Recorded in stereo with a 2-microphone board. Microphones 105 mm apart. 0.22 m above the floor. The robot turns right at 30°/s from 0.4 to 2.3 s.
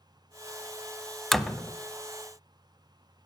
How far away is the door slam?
About 0.8 m.